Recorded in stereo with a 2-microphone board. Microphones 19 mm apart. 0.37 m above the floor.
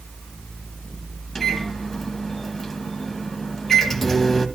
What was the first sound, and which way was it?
A microwave, 15° left (ahead or behind).